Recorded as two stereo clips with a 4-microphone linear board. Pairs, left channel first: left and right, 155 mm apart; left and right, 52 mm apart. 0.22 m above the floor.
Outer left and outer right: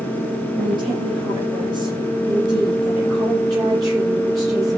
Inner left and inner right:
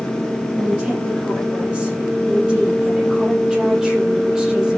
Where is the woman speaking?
35° right (ahead or behind), 8.5 m; by 4.8 s 20° right (ahead or behind), 7.5 m.